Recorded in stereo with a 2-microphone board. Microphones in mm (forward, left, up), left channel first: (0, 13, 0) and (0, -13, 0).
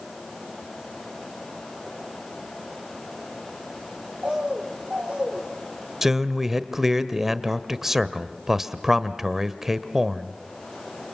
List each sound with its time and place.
4.2 s a bird: 45° right (ahead or behind), 3 m
6.0 s a man speaking: 15° right (ahead or behind), 1.1 m